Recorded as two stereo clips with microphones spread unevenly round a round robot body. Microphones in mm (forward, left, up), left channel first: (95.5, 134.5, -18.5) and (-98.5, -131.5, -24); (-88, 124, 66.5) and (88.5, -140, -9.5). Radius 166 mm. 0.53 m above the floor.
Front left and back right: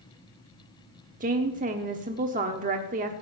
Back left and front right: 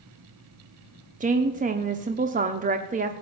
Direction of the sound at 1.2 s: 75° right.